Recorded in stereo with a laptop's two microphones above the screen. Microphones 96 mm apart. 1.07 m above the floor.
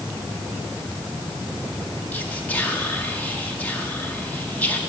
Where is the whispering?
15° left (ahead or behind), 1.7 m.